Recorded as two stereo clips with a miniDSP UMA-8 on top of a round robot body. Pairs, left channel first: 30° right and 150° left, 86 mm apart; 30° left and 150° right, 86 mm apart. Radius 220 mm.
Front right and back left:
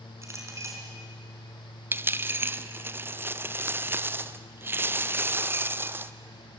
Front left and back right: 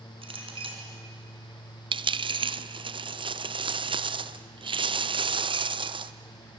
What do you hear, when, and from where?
0.2 s a clink: 150° right, 3.5 m
1.9 s a dropped coin: 145° right, 0.8 m